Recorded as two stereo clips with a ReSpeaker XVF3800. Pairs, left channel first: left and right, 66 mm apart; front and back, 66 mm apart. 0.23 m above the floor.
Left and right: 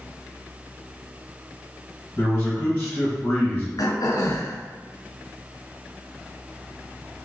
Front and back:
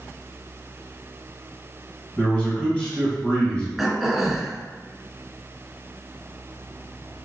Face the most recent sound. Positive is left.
turn(degrees=95)